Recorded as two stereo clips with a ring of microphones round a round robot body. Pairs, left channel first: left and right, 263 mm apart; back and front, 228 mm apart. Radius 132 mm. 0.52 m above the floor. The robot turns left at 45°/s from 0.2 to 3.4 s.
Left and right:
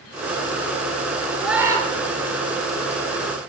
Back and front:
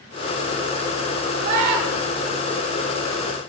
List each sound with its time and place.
1.4 s a scream: straight ahead, 9.5 m; by 1.9 s 20° right, 9.5 m